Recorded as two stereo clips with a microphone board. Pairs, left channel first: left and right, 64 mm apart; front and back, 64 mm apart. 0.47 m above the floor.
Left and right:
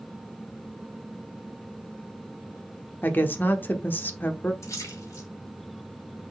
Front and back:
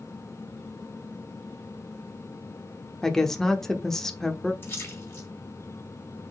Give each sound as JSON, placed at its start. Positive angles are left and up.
{"t": 3.0, "sound": "a woman speaking", "azimuth_deg": 75, "distance_m": 0.9}
{"t": 4.6, "sound": "a splash", "azimuth_deg": 50, "distance_m": 3.0}